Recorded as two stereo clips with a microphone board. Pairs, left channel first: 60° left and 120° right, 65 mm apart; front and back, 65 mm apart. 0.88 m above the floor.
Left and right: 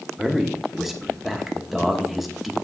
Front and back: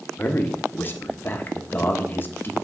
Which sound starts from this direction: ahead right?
A man speaking, at 0.2 s.